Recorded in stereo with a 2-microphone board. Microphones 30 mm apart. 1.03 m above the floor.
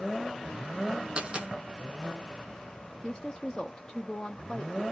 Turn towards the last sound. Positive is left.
turn(degrees=20)  # may be behind; listen again after turning